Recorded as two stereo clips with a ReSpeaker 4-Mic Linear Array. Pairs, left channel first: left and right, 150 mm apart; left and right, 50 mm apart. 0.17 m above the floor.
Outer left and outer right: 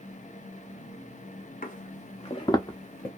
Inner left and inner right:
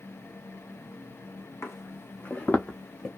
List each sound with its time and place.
1.6 s footsteps: 65° left (ahead or behind), 0.7 m; by 3.1 s 20° left (ahead or behind), 1.0 m